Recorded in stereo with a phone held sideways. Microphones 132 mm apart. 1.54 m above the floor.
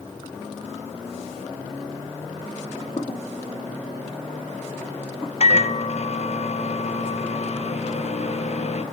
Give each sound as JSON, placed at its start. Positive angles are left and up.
{"t": 2.6, "sound": "footsteps", "side_deg": 40, "distance_m": 1.9}
{"t": 5.4, "sound": "a microwave", "side_deg": 55, "distance_m": 0.8}